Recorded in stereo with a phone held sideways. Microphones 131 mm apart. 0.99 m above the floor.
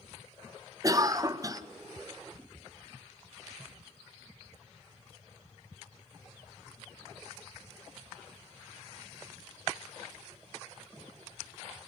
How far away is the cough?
About 0.7 m.